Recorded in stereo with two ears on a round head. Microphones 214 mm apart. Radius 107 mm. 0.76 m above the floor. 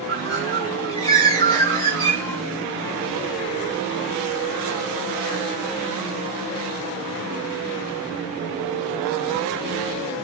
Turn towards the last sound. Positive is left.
turn(degrees=15)  # may be behind; listen again after turning